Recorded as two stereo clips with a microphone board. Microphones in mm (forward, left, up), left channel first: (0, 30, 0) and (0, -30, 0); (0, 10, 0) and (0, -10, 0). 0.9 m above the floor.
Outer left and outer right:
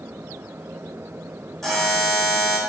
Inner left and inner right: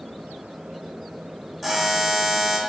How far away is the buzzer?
About 4.5 m.